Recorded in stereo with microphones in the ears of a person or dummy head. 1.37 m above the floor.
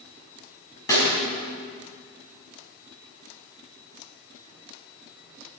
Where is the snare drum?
20° left (ahead or behind), 5 m.